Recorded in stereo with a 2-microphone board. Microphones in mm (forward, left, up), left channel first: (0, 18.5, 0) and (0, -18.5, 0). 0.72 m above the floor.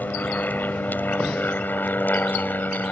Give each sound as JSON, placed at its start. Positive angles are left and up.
{"t": 0.0, "sound": "an aircraft", "side_deg": 55}